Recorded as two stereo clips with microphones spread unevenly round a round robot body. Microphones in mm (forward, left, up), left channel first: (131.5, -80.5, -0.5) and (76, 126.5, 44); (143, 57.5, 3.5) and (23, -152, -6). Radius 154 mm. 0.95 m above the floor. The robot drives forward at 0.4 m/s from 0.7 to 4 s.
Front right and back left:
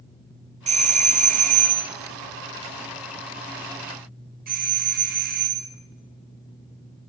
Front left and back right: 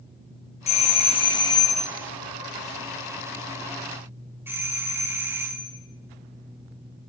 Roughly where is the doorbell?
Left.